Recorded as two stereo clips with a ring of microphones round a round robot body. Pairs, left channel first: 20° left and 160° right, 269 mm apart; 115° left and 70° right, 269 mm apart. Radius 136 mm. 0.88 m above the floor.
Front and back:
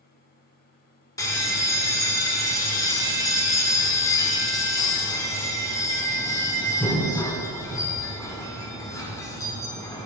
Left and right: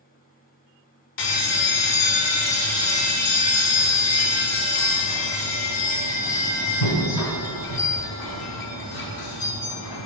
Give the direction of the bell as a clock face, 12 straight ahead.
9 o'clock.